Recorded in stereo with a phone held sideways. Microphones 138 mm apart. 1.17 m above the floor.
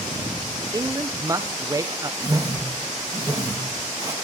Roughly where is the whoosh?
Right.